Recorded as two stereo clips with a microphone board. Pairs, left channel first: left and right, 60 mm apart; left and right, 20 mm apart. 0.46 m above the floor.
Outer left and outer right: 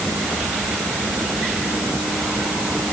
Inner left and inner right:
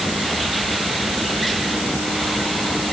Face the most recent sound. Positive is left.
No sound to turn to.